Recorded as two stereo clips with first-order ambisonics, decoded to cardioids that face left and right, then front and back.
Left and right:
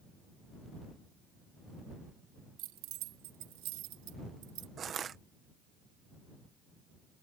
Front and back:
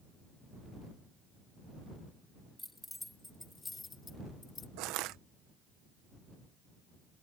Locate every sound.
2.6 s keys jangling: 90° right; by 4.7 s 65° right
4.8 s crushing: 155° right